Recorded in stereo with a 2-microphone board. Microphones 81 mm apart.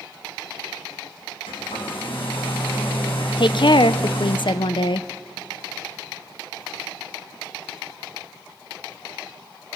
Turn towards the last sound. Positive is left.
turn(degrees=65)  # may be behind; listen again after turning